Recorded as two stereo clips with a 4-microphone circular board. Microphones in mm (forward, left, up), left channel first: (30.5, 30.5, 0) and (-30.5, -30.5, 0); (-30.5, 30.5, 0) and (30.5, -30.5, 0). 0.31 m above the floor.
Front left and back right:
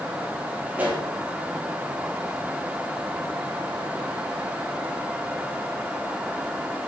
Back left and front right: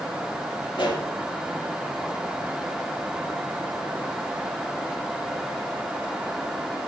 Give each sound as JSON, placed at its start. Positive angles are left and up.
{"t": 0.7, "sound": "a pop", "azimuth_deg": 155, "distance_m": 7.0}